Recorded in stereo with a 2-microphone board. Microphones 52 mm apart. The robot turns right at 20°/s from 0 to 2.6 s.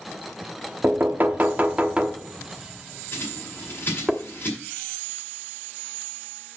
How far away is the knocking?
About 1.0 m.